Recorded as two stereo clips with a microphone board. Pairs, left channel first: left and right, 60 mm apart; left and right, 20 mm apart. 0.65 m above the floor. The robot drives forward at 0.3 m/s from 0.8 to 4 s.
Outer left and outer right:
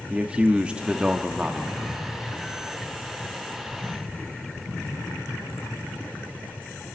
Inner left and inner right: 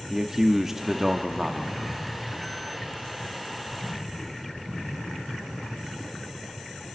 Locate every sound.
0.1 s a man speaking: 20° right (ahead or behind), 0.9 m; by 2.0 s 15° right (ahead or behind), 1.2 m